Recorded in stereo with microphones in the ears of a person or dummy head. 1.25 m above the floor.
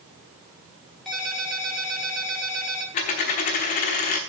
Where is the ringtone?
Centre (ahead or behind), 3 m.